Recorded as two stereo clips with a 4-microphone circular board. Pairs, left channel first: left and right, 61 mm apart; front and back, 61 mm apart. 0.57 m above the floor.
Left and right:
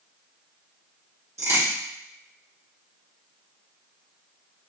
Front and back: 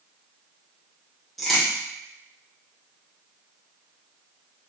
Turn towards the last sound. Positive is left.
turn(degrees=-90)